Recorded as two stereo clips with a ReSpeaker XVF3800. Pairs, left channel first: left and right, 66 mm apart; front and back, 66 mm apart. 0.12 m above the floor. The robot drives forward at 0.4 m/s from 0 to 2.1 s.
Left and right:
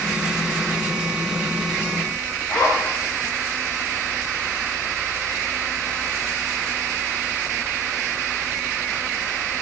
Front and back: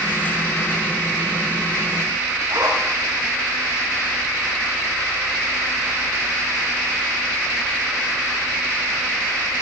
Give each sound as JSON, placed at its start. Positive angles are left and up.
{"t": 2.5, "sound": "a zipper", "azimuth_deg": 150, "distance_m": 7.5}